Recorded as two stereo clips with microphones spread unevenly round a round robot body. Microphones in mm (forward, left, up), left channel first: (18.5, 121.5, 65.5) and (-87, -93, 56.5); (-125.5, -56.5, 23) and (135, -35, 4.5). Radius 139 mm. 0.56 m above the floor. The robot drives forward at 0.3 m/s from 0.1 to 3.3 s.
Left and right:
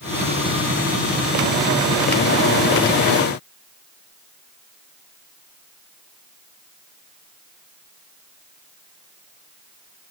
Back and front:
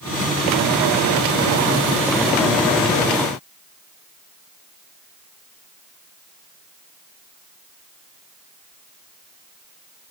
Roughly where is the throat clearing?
I don't hear throat clearing.